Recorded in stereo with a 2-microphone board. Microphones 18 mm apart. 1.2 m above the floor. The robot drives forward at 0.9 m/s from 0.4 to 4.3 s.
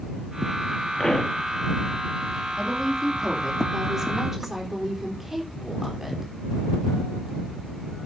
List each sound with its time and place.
1.0 s a pop: 45° left (ahead or behind), 1.7 m; by 1.4 s 55° left (ahead or behind), 1.5 m
2.5 s a woman speaking: 35° right (ahead or behind), 2.5 m; by 6.3 s 20° right (ahead or behind), 4 m